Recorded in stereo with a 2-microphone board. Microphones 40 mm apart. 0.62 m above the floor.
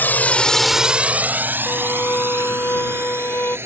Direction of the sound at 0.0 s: 55° left (ahead or behind).